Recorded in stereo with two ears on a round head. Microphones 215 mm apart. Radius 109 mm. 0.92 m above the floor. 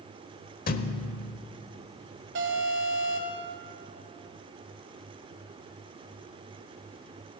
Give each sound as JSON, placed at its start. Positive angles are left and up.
{"t": 0.7, "sound": "a thud", "side_deg": 40, "distance_m": 0.9}
{"t": 2.4, "sound": "an alarm", "side_deg": -55, "distance_m": 3.0}